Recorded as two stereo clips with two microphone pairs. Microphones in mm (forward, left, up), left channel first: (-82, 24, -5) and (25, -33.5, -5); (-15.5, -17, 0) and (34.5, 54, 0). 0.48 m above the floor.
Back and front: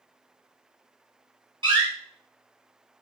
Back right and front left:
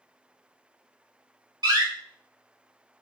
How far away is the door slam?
About 2 m.